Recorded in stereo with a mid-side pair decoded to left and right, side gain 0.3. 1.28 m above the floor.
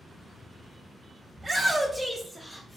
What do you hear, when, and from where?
1.4 s a shout: 30° right, 0.7 m; by 2.8 s 45° left, 0.8 m